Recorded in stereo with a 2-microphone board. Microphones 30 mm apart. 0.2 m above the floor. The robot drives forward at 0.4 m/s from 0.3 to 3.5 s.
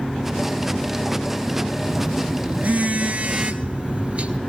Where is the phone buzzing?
70° right (ahead or behind), 1.0 m; by 4.4 s 50° right (ahead or behind), 1.2 m.